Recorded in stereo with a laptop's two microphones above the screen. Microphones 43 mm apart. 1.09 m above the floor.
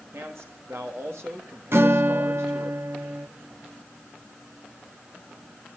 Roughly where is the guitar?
Right.